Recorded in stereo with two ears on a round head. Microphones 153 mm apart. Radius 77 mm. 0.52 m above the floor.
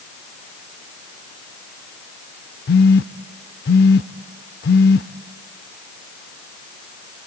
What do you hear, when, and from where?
2.7 s a phone buzzing: 60° left (ahead or behind), 0.6 m